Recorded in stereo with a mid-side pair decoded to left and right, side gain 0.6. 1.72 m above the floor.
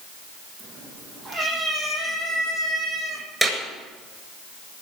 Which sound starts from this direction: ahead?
A clap, at 3.4 s.